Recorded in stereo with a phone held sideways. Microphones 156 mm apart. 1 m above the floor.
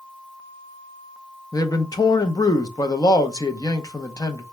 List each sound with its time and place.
1.5 s a man speaking: 25° left (ahead or behind), 0.6 m